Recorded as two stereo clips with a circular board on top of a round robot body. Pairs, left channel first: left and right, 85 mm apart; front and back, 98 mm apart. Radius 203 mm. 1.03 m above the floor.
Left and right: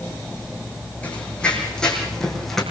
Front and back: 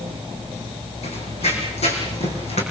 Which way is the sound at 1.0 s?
10° left.